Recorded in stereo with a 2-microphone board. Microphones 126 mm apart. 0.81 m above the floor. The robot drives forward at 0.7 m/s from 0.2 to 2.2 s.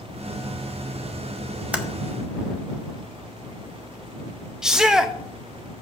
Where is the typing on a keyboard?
10° right (ahead or behind), 1.0 m.